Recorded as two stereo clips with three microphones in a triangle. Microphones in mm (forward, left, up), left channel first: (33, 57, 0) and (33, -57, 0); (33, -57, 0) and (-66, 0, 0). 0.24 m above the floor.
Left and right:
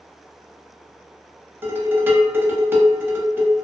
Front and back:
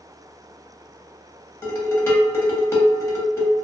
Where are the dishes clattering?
55° right, 0.8 m.